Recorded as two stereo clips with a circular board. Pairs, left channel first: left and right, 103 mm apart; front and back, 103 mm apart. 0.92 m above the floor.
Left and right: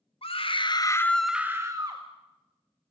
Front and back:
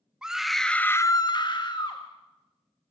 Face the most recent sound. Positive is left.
turn(degrees=-40)